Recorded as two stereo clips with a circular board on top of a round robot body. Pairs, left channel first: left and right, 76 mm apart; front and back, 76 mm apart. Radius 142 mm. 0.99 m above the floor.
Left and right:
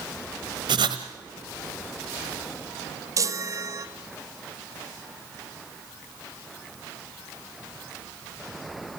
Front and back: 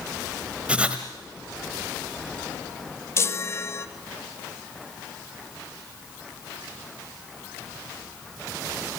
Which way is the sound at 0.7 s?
105° right.